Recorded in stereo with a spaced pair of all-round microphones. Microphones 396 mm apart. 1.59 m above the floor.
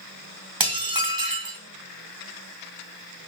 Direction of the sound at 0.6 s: 60° right (ahead or behind).